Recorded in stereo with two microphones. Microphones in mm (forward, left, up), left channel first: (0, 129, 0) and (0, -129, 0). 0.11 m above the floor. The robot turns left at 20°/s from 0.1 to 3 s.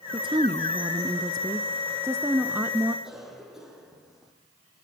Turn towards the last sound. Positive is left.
turn(degrees=0)  # may be behind; listen again after turning